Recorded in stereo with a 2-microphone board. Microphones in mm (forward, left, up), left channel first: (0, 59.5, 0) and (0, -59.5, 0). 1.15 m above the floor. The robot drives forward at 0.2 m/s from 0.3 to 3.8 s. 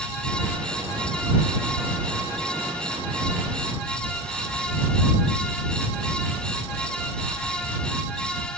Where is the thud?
I don't hear a thud.